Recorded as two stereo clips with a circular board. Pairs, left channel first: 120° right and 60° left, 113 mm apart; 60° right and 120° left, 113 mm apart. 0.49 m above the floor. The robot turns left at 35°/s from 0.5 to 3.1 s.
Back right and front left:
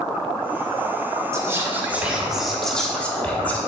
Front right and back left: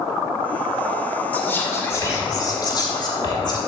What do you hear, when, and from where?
1.3 s whispering: 10° left, 1.3 m; by 3.6 s 50° right, 1.3 m